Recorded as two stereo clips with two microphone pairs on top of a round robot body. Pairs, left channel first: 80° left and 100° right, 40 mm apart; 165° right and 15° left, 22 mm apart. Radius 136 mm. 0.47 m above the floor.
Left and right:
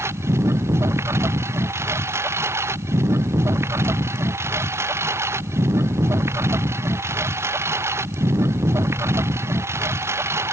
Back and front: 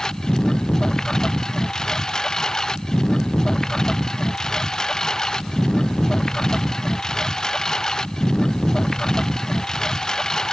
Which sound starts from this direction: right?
A lawn mower, at 0.0 s.